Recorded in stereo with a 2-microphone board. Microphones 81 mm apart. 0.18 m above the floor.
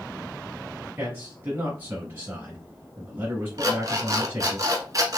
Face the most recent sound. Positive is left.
turn(degrees=-45)  # may be behind; listen again after turning